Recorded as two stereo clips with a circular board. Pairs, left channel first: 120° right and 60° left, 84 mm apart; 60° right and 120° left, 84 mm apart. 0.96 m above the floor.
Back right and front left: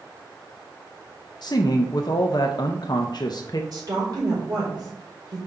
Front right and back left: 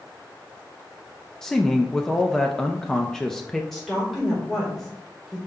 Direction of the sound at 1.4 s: 140° right.